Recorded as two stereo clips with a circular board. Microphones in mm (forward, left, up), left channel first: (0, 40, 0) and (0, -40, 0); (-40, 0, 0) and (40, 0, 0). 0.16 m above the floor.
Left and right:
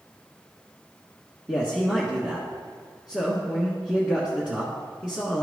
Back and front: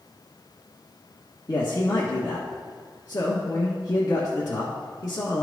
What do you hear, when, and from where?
1.5 s a man speaking: 165° right, 1.4 m